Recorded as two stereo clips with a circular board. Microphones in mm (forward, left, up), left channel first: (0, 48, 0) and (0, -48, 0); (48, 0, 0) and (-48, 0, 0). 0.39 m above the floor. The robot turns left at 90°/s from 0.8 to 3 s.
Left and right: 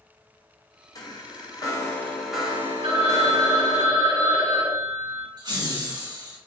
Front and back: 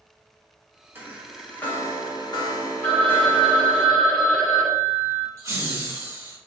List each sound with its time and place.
0.9 s a chime: 120° left, 1.0 m; by 3.8 s 65° right, 1.0 m
2.8 s a phone ringing: 70° right, 1.5 m; by 5.3 s 90° right, 1.5 m
5.4 s laughter: 125° right, 2 m